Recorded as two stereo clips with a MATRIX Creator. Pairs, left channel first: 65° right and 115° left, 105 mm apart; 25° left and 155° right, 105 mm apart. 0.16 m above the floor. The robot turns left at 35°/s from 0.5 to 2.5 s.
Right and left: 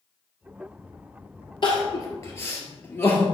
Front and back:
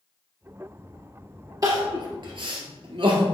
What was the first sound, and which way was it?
Crying, 105° right.